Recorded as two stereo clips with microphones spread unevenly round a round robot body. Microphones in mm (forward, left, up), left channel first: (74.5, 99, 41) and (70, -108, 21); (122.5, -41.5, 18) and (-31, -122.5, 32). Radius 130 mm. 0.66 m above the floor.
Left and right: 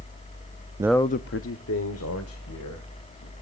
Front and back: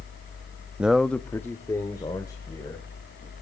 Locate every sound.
0.8 s a man speaking: 65° right, 0.5 m; by 3.3 s 105° left, 3.5 m